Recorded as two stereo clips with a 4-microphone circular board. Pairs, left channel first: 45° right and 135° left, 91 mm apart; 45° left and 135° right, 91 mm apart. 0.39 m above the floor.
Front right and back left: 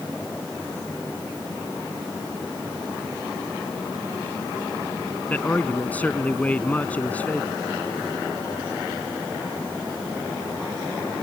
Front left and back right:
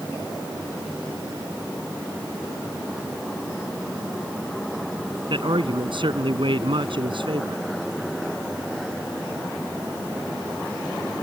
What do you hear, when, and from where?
5.3 s a man speaking: 120° right